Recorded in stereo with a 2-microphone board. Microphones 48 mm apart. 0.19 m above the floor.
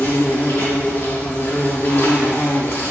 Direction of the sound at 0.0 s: 60° left (ahead or behind).